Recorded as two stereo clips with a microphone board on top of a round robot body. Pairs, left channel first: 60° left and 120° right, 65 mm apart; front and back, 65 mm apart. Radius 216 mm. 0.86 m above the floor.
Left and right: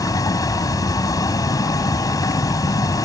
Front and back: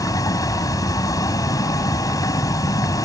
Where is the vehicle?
30° left.